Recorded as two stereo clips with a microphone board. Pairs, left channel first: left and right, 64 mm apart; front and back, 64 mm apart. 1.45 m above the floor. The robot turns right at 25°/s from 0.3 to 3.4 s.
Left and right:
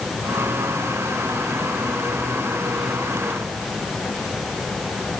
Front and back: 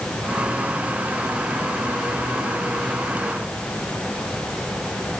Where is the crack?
No crack in this recording.